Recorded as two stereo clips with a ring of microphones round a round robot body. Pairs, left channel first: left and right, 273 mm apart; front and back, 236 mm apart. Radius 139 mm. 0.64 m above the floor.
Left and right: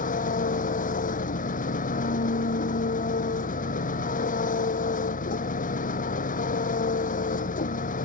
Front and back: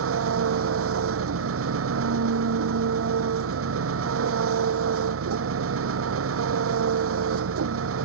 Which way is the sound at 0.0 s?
155° left.